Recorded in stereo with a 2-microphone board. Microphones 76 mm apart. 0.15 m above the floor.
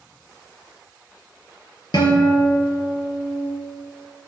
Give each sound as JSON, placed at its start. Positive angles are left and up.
{"t": 1.9, "sound": "a guitar", "side_deg": 65, "distance_m": 3.0}